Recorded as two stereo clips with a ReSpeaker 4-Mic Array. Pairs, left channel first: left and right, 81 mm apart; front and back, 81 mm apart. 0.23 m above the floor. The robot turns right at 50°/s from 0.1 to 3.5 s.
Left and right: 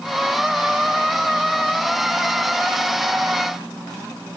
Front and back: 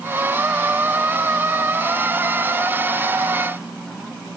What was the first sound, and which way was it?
Only background noise.